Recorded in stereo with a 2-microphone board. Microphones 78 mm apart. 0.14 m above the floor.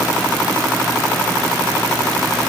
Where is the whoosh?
I don't hear a whoosh.